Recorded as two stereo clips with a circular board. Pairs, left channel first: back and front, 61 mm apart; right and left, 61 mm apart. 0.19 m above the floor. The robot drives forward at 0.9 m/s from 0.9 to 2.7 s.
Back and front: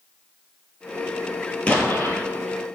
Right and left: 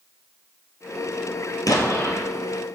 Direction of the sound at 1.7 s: 110° right.